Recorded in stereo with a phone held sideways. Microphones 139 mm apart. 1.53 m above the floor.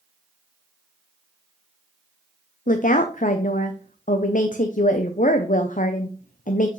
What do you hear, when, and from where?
2.7 s a woman speaking: 70° left (ahead or behind), 0.7 m